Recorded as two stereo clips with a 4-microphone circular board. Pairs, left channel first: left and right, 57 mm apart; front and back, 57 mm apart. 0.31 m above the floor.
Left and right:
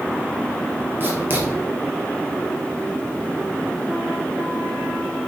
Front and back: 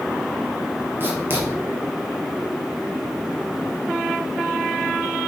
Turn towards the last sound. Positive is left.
turn(degrees=-135)